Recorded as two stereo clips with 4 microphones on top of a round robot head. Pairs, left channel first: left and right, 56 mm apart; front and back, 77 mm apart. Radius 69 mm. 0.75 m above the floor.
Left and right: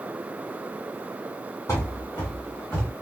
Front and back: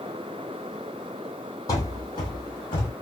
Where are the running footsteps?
30° left, 1.2 m; by 2.9 s straight ahead, 1.9 m.